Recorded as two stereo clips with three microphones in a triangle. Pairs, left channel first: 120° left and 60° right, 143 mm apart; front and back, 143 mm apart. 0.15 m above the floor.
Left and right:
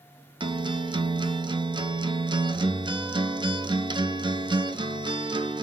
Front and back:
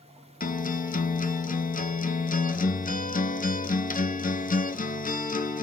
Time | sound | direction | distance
0.4 | a guitar | 5° right | 0.7 m